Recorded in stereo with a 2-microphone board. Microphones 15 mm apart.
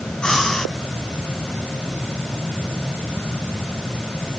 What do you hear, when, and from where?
0.2 s breathing: 85° left, 6 m